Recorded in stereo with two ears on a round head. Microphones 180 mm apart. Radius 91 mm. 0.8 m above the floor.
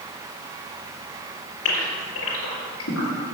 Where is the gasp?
85° left, 4 m.